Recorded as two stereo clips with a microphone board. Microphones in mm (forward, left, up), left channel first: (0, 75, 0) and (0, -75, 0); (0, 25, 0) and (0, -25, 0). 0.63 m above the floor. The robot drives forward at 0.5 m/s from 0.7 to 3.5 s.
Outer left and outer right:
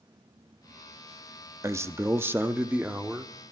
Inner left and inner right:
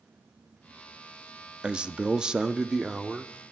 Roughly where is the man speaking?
Centre.